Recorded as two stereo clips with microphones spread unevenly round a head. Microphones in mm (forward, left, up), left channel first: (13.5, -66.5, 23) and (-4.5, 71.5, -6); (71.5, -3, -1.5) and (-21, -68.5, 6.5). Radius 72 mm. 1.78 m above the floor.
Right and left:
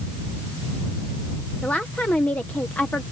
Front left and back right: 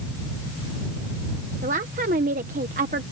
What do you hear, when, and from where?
1.6 s a woman speaking: 160° right